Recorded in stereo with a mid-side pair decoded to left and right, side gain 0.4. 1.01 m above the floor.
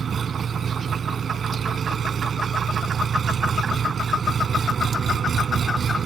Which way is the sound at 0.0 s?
55° right.